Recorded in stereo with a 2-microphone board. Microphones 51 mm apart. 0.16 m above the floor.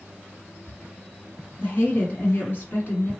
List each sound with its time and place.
1.6 s a woman speaking: 40° left (ahead or behind), 2 m